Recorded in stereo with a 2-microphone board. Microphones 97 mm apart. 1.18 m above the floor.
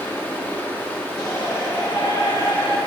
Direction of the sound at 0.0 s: 25° left (ahead or behind).